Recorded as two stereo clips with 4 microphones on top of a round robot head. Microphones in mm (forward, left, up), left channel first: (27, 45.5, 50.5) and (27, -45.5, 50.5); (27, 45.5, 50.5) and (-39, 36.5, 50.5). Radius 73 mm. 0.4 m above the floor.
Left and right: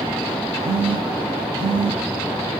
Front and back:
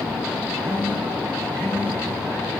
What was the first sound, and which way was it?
A phone buzzing, 110° right.